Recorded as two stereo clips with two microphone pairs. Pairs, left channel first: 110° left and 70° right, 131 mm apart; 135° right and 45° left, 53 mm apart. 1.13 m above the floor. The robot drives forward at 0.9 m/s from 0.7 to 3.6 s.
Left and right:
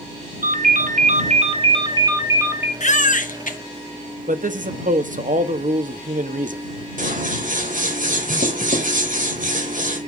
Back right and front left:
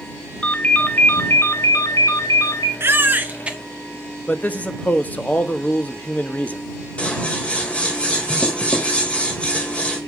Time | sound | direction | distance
0.4 | a ringtone | 75° right | 1.1 m
2.8 | a baby crying | 85° left | 1.2 m
4.3 | a man speaking | 75° right | 1.3 m
7.0 | scissors | 70° right | 3 m